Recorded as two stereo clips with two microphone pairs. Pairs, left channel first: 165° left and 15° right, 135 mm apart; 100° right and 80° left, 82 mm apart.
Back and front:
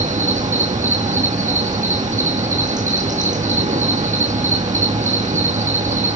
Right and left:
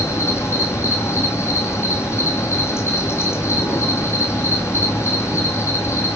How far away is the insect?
About 2 m.